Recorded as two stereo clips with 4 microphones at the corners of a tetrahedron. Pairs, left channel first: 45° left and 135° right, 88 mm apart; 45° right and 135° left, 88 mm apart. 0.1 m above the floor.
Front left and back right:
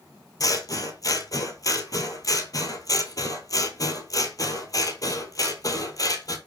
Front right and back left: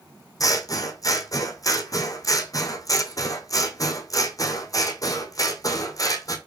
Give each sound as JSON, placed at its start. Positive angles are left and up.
{"t": 0.4, "sound": "scissors", "azimuth_deg": 0, "distance_m": 0.9}